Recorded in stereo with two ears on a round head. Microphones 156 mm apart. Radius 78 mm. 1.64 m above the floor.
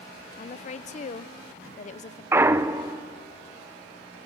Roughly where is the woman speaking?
Left.